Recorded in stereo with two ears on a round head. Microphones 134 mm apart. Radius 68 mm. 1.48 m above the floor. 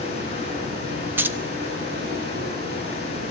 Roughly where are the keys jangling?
Centre.